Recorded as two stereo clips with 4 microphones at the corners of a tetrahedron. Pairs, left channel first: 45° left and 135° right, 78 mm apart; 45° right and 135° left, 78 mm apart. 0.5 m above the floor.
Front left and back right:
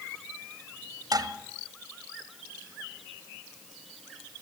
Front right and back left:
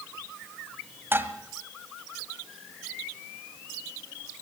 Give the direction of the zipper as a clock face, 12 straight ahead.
No zipper in this recording.